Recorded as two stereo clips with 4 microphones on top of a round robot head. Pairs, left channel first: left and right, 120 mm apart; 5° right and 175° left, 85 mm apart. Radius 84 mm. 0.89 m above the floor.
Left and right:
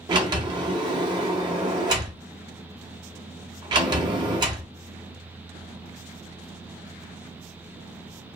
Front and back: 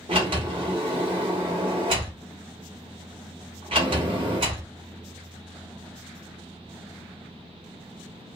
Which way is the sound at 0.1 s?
135° right.